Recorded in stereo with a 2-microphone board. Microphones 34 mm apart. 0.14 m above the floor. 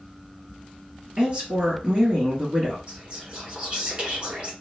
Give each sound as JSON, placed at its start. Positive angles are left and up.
{"t": 1.2, "sound": "a woman speaking", "side_deg": -35, "distance_m": 2.0}
{"t": 2.9, "sound": "whispering", "side_deg": -35, "distance_m": 1.3}